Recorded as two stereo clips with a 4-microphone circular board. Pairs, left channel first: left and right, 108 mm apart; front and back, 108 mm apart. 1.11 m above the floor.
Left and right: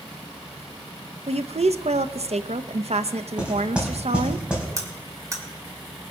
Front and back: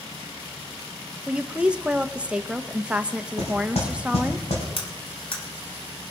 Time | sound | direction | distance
1.3 | a woman speaking | 100° right | 0.7 m
3.4 | knocking | 10° right | 4.5 m
4.8 | cutlery clinking | 30° right | 2.5 m